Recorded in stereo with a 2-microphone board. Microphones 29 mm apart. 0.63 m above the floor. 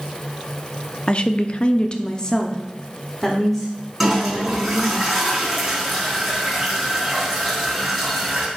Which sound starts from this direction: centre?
A toilet flushing, at 4.0 s.